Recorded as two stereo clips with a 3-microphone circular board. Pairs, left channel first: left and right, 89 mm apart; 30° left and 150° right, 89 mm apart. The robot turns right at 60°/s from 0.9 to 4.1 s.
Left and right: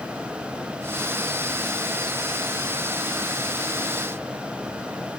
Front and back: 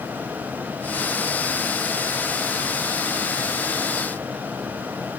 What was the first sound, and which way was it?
Only background noise.